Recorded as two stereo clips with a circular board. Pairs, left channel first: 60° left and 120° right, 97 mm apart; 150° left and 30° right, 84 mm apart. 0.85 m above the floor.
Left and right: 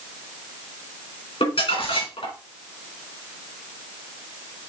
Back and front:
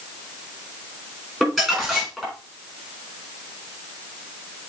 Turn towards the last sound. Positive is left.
turn(degrees=65)